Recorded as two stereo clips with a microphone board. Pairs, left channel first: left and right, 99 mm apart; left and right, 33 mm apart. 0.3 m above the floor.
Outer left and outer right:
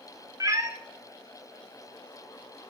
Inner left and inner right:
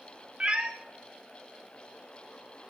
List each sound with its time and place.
0.4 s a cat meowing: 35° right (ahead or behind), 0.7 m